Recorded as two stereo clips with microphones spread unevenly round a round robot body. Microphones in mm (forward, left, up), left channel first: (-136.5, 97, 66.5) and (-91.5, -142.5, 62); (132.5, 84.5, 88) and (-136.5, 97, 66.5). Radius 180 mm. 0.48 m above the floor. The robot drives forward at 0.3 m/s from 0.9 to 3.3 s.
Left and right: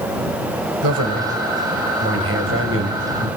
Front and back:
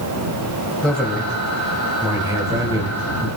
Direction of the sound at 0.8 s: 90° right.